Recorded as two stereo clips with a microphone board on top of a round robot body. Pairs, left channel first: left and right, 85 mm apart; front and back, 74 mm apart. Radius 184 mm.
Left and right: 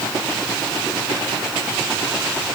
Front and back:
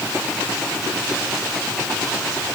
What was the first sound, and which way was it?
Only background noise.